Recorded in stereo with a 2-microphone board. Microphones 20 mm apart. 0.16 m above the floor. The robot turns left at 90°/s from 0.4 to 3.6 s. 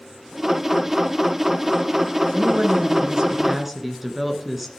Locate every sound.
2.3 s a woman speaking: 55° right, 1.9 m; by 4.7 s 170° right, 1.9 m